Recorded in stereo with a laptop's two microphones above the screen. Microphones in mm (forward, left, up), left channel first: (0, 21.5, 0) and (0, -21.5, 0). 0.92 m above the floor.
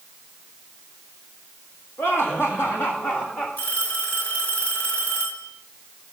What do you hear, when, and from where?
2.0 s laughter: 70° left (ahead or behind), 1.9 m; by 3.5 s 45° left (ahead or behind), 1.7 m
3.6 s a phone ringing: 45° left (ahead or behind), 2.5 m